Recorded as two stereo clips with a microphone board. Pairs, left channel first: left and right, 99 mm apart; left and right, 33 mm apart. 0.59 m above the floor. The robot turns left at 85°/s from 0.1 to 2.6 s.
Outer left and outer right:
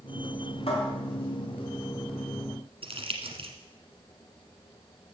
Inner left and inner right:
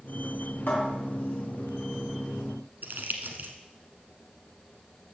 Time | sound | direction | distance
0.7 | a cupboard door | 70° left (ahead or behind) | 3 m
2.8 | crumpling | 70° right (ahead or behind) | 1.2 m